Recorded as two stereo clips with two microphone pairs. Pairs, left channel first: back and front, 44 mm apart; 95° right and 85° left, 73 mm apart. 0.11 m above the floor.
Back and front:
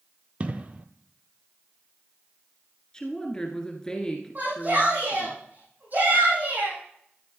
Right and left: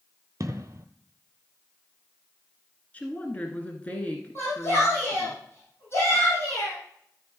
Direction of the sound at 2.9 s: 130° right.